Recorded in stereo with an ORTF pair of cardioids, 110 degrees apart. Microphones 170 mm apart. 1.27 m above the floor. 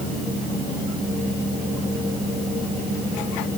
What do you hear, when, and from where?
Only background noise.